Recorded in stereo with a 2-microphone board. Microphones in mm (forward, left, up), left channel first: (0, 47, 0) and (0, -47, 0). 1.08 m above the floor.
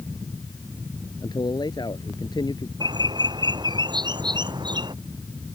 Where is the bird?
50° right (ahead or behind).